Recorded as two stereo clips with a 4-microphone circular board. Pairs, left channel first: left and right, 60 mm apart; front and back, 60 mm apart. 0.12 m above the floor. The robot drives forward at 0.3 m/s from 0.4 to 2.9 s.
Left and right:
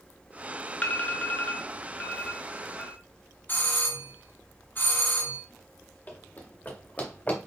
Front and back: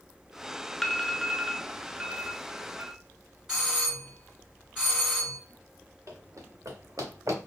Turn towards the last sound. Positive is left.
turn(degrees=160)